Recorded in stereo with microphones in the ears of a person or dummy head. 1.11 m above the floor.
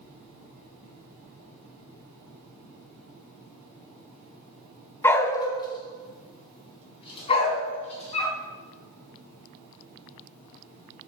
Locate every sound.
5.0 s a dog barking: 15° left (ahead or behind), 1.3 m; by 8.4 s 35° left (ahead or behind), 4.5 m